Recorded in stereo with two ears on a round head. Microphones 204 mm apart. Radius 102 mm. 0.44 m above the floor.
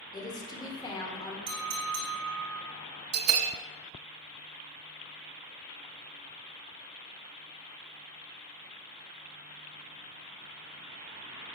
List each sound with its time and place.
0.1 s a woman speaking: 20° left (ahead or behind), 1.1 m
1.5 s a clink: 70° right (ahead or behind), 2.5 m
3.1 s a bell: 75° right (ahead or behind), 0.6 m